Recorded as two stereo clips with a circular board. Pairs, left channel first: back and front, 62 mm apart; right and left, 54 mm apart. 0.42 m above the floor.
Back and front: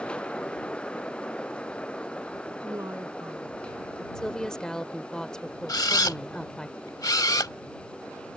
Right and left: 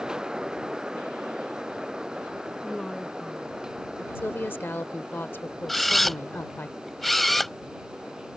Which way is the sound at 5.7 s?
175° right.